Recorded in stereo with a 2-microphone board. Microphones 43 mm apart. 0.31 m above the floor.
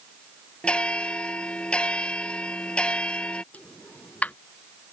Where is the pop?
35° left (ahead or behind).